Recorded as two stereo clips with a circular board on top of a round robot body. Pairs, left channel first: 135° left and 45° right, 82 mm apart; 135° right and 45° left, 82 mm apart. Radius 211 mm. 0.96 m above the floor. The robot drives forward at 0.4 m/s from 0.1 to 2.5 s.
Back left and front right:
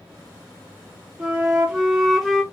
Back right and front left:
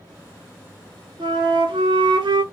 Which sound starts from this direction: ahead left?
A flute, at 1.2 s.